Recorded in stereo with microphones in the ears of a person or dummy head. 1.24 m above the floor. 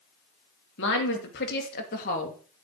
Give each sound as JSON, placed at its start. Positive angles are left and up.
{"t": 0.8, "sound": "a woman speaking", "side_deg": 65, "distance_m": 2.5}